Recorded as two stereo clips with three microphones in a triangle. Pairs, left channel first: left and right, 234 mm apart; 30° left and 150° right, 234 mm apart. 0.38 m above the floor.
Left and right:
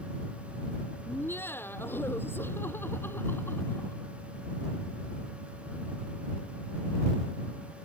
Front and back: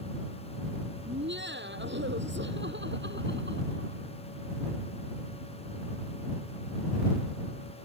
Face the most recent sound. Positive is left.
turn(degrees=170)